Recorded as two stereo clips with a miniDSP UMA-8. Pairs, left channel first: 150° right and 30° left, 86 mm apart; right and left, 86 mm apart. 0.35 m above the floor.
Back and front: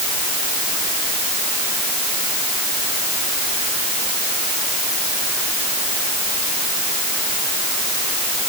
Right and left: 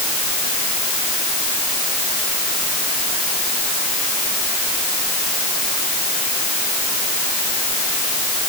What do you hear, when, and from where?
Only background noise.